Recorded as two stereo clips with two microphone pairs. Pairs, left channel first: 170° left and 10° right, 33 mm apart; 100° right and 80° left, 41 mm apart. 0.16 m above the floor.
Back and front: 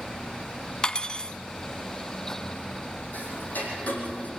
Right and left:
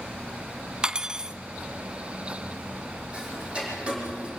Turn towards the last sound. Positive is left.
turn(degrees=140)